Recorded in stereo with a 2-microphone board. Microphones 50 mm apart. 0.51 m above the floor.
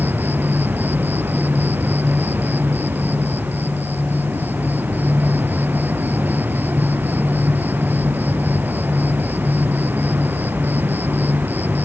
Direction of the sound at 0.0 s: 40° right (ahead or behind).